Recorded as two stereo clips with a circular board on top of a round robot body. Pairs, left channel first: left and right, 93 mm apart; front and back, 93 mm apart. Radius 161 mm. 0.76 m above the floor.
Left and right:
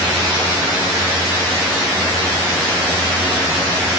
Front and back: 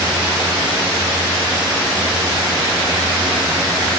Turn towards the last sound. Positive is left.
No sound to turn to.